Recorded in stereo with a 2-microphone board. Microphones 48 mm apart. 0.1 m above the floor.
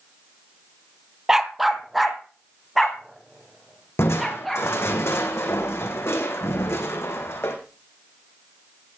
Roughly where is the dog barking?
Centre.